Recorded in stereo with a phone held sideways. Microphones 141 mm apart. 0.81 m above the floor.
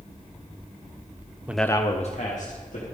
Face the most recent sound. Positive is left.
turn(degrees=65)  # may be behind; listen again after turning